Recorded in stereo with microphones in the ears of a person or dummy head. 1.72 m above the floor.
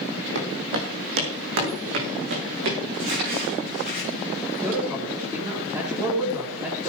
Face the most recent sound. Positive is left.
turn(degrees=-20)  # may be behind; listen again after turning